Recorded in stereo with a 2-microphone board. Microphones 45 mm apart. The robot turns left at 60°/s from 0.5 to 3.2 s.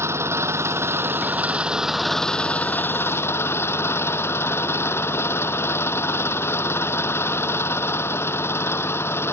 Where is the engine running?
90° right; by 9.3 s 110° left.